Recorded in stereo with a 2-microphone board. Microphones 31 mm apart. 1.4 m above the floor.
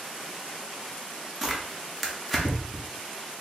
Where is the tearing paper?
Centre (ahead or behind), 0.8 m.